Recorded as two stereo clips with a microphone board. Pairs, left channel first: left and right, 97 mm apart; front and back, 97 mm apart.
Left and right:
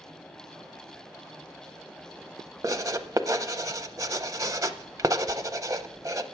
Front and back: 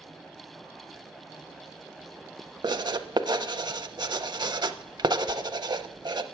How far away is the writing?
About 0.5 m.